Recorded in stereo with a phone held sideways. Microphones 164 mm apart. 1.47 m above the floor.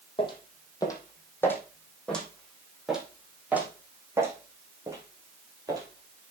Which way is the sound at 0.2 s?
30° left (ahead or behind).